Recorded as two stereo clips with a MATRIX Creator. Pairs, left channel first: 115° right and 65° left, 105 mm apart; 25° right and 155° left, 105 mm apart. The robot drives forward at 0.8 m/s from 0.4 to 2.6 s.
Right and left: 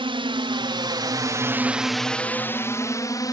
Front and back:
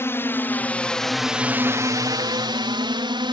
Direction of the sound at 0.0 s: 40° left.